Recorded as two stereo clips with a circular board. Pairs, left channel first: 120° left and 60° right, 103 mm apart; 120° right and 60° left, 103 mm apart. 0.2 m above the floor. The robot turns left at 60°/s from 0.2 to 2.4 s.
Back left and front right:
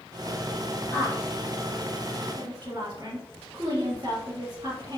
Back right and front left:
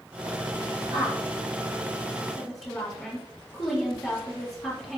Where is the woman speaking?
65° left, 1.9 m; by 5.0 s 25° right, 1.9 m.